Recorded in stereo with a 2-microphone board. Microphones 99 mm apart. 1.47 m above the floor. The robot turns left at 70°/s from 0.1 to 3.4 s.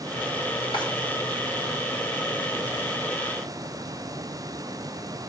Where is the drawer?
60° left (ahead or behind), 2.5 m; by 0.8 s 55° left (ahead or behind), 2.5 m.